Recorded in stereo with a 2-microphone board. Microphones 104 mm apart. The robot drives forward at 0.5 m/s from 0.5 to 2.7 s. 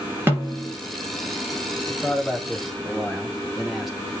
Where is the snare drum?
20° right (ahead or behind), 4 m.